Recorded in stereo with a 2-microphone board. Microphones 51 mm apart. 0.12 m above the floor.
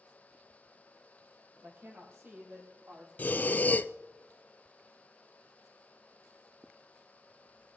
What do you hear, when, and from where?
1.6 s a woman speaking: 50° right (ahead or behind), 4 m; by 3.1 s 45° right (ahead or behind), 5.5 m
3.2 s breathing: 40° left (ahead or behind), 0.6 m